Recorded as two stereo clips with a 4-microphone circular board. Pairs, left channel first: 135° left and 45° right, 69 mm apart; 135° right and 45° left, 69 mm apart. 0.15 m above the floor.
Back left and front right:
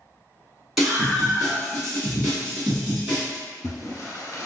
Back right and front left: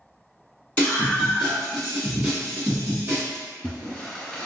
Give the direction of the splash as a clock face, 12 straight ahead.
7 o'clock.